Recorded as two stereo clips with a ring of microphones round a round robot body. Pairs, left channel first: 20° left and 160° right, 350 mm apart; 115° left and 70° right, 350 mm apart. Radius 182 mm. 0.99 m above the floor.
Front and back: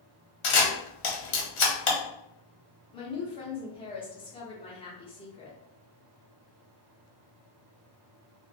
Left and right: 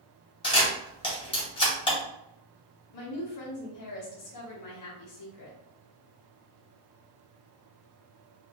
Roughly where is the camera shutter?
Ahead left.